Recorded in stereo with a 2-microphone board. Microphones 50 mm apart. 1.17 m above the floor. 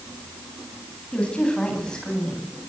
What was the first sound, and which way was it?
A woman speaking, 20° left (ahead or behind).